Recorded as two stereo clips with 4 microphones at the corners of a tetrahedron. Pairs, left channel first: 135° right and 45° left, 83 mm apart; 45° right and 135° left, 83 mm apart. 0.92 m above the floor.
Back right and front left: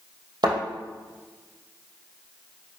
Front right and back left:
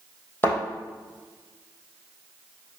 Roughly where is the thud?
Ahead.